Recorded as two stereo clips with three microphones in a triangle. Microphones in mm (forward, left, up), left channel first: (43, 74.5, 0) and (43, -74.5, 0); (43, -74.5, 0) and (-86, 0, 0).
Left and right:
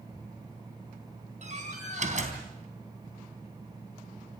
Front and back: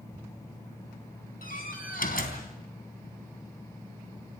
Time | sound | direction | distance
1.4 | a door slam | 50° right | 3.5 m